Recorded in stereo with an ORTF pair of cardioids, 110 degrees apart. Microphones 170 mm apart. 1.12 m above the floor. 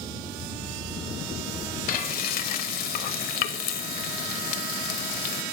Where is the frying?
60° left, 0.6 m.